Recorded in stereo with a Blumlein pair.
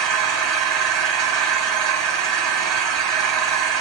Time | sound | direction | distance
0.0 | an engine running | 35° right | 2.5 m